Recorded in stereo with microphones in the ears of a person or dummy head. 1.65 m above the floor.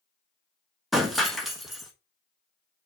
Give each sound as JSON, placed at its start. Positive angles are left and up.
{"t": 0.9, "sound": "breaking glass", "side_deg": 0, "distance_m": 1.4}